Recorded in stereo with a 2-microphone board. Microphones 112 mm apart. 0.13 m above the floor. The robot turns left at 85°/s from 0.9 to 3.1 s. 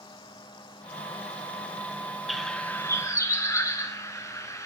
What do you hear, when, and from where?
2.3 s a bird: centre (ahead or behind), 1.1 m; by 4.7 s 30° left (ahead or behind), 1.1 m